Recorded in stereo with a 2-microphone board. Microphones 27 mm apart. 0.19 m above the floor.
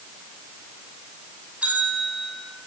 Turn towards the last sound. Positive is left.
turn(degrees=-75)  # may be behind; listen again after turning